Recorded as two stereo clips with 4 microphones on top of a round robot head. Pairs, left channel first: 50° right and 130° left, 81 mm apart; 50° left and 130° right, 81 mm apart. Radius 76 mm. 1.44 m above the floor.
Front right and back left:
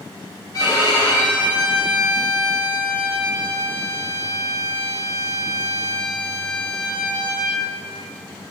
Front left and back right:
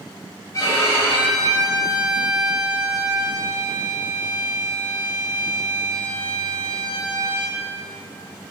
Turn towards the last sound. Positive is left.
turn(degrees=-5)